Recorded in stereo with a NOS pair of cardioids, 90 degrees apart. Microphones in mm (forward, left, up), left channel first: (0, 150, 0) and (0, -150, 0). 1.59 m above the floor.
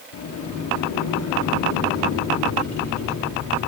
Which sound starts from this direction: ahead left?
A sliding door, at 0.1 s.